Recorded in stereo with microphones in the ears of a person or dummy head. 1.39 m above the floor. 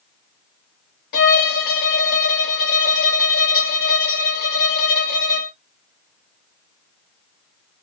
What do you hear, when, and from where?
1.1 s a violin: 55° left (ahead or behind), 0.9 m